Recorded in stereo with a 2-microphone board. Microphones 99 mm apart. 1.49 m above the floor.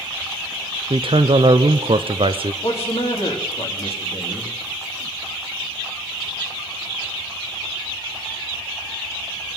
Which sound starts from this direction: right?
A man speaking, at 0.9 s.